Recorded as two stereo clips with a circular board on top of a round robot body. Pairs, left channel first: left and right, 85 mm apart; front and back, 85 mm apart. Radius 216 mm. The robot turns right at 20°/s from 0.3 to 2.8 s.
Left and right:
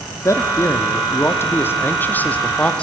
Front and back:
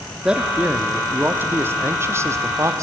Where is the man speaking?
105° left, 1.0 m; by 2.8 s 155° left, 1.0 m.